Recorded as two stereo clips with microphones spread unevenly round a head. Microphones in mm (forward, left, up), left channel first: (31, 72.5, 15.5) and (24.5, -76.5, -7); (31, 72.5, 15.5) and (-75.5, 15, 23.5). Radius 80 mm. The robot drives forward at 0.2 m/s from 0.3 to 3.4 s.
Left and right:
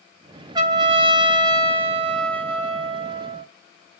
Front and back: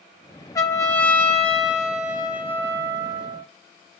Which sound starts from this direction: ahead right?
A trumpet, at 0.6 s.